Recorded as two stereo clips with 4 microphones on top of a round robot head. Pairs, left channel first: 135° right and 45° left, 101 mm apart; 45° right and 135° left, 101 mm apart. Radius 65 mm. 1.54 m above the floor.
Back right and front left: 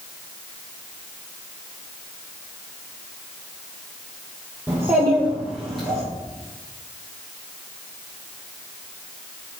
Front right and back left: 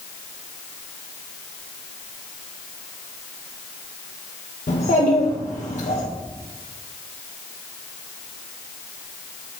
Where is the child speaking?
25° right, 1.3 m; by 6.0 s 45° right, 1.8 m.